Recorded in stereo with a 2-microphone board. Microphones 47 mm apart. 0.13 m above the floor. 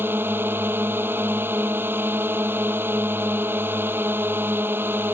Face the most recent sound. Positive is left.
turn(degrees=-50)  # may be behind; listen again after turning